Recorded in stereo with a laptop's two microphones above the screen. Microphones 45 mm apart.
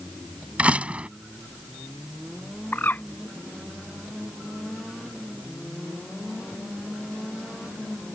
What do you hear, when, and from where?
0.6 s a door slam: 30° right (ahead or behind)
2.7 s a bird: 45° left (ahead or behind)